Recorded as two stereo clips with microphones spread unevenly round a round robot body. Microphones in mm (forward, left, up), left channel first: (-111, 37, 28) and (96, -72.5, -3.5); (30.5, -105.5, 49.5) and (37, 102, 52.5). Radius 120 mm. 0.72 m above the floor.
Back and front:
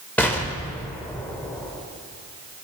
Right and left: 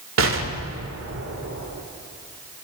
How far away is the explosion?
About 1.5 m.